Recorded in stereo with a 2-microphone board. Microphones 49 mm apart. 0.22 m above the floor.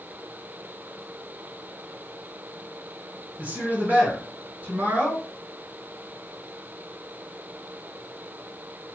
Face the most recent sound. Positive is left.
turn(degrees=-40)  # may be behind; listen again after turning